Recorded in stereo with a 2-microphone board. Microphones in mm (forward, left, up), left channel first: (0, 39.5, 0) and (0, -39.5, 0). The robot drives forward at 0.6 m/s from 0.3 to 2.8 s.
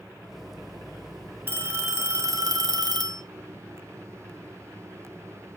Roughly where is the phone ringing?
Right.